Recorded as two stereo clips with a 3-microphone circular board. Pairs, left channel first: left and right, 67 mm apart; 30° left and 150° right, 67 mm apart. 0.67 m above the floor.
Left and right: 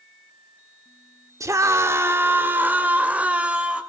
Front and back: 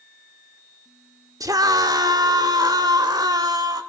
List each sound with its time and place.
1.4 s a scream: 125° right, 1.5 m; by 3.8 s 165° right, 2.5 m